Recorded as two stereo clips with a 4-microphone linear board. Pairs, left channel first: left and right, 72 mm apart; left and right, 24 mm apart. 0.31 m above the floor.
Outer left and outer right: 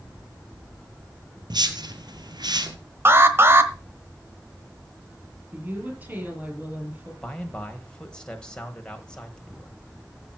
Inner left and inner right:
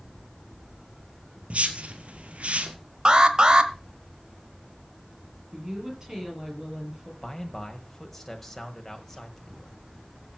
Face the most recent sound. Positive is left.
turn(degrees=15)  # may be behind; listen again after turning